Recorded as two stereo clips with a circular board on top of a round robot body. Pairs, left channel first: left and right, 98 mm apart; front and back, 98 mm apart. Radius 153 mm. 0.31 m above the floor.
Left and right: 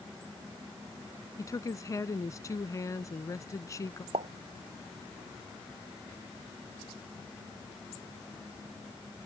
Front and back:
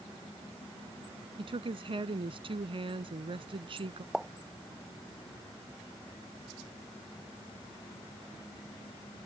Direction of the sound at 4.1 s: 95° right.